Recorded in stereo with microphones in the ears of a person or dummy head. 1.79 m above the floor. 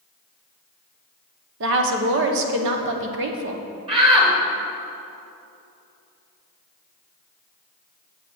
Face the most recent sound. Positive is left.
turn(degrees=-30)  # may be behind; listen again after turning